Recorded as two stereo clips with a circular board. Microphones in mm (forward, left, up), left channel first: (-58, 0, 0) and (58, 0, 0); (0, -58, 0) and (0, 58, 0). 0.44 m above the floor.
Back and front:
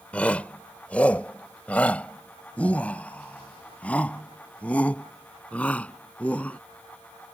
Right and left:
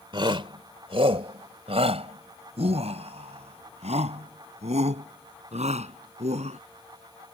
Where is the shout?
105° left; by 6.6 s 100° left.